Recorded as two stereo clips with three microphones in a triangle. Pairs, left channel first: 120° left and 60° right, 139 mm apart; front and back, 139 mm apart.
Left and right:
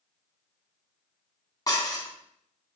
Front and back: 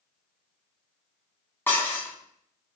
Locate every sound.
1.7 s dishes clattering: 70° left, 1.0 m